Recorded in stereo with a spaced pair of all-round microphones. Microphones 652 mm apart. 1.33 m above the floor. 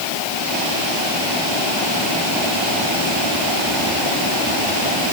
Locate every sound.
Only background noise.